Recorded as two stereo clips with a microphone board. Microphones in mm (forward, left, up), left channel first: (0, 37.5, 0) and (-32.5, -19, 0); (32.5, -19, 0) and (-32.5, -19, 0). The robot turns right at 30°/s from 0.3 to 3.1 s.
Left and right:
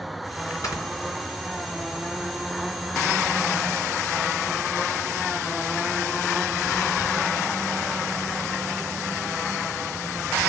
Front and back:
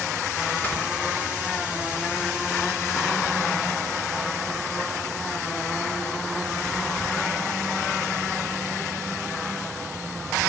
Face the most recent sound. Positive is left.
turn(degrees=140)